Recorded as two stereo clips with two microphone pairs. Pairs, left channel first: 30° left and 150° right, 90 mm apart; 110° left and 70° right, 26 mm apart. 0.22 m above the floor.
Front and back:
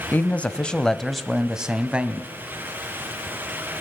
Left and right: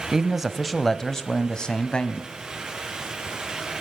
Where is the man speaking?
15° right, 1.3 m; by 2.3 s 140° left, 1.6 m.